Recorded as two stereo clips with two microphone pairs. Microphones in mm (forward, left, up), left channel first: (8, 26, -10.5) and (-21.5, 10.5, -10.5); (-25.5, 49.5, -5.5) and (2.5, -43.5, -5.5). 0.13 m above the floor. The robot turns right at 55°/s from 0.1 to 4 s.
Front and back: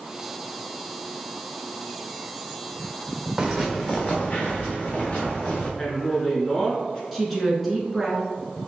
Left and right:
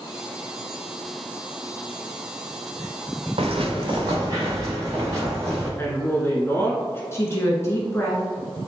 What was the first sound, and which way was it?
Footsteps, 75° right.